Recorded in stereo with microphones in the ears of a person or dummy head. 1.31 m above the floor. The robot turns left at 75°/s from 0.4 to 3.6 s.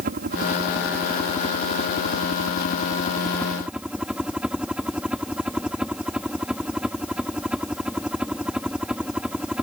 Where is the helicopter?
125° right; by 9.6 s 5° right.